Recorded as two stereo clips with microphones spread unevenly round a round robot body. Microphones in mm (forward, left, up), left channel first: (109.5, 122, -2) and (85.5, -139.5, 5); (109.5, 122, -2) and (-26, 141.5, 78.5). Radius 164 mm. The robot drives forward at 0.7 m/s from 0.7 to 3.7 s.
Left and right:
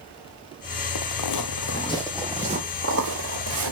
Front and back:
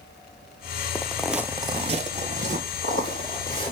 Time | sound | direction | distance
0.9 | footsteps | 80° left | 0.8 m